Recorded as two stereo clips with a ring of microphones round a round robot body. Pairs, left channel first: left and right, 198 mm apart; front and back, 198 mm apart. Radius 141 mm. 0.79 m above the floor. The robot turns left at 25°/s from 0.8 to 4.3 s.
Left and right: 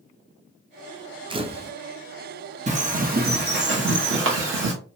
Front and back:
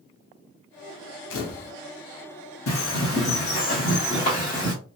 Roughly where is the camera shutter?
Ahead right.